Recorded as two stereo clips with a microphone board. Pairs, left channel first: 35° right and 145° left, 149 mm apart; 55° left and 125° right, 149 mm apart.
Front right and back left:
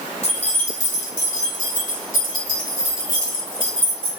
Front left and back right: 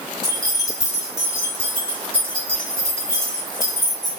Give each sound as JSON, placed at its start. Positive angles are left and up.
{"t": 0.2, "sound": "keys jangling", "azimuth_deg": 0, "distance_m": 2.0}